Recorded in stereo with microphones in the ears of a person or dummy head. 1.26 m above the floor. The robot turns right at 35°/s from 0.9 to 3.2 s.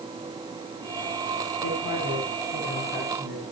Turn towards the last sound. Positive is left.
turn(degrees=-175)